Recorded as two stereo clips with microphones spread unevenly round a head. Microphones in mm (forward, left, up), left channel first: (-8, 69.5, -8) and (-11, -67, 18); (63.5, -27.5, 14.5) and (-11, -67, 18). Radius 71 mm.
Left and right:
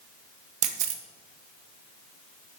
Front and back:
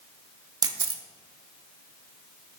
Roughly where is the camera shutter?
Behind right.